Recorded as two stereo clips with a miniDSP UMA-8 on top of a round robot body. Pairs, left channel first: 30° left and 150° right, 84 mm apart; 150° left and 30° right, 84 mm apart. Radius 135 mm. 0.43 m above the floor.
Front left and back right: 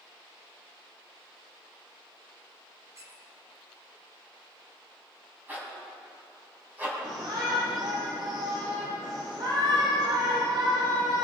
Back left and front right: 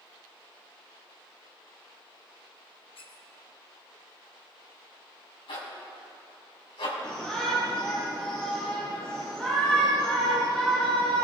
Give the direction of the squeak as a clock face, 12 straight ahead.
7 o'clock.